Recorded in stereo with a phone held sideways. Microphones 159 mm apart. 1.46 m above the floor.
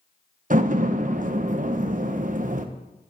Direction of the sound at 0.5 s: 55° right (ahead or behind).